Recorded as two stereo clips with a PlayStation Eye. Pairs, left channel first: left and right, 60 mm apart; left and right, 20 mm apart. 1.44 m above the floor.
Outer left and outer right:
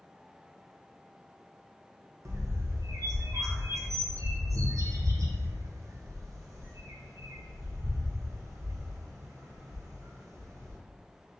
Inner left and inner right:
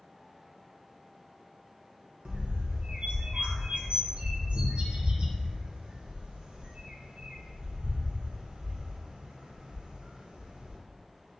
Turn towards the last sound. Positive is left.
turn(degrees=-60)  # may be behind; listen again after turning